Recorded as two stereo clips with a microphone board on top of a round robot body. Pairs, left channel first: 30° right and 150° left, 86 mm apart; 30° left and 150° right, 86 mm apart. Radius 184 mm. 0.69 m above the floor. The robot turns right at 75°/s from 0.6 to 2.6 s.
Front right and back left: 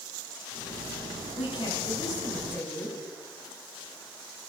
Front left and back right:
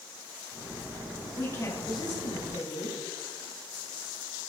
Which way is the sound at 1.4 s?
40° right.